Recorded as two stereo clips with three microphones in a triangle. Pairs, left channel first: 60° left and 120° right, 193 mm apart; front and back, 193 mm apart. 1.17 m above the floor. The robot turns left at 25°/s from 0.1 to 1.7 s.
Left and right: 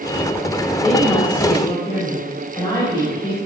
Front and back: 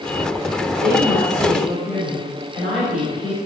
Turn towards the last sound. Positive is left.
turn(degrees=130)